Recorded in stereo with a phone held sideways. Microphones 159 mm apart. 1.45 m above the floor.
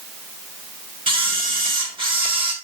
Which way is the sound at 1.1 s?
35° right (ahead or behind).